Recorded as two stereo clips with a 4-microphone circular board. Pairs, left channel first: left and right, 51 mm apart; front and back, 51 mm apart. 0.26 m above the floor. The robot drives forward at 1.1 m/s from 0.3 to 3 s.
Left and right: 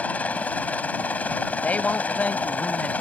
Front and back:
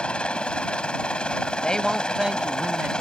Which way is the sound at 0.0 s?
55° left.